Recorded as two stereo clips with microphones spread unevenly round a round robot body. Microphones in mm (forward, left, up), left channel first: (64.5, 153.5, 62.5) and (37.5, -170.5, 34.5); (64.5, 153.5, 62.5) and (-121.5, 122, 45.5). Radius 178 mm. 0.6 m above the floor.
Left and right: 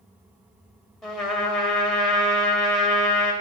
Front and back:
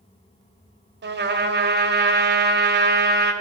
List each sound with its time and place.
1.0 s a trumpet: 175° left, 1.8 m